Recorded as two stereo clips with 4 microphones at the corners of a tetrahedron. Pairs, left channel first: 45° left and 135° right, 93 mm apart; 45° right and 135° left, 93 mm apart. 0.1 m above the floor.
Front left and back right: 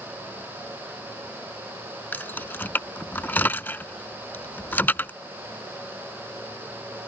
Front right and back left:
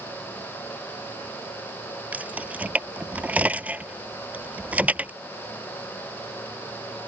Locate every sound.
2.1 s keys jangling: 85° left